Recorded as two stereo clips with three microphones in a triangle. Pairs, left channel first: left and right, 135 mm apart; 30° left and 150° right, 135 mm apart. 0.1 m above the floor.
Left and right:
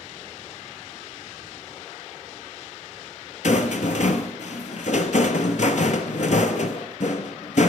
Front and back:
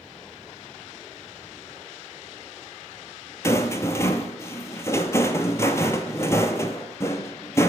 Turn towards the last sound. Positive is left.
turn(degrees=95)